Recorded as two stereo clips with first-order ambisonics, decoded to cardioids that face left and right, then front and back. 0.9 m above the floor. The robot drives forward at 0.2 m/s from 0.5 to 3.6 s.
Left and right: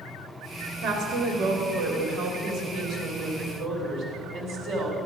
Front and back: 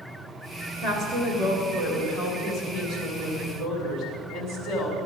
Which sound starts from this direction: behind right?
A woman speaking, at 0.8 s.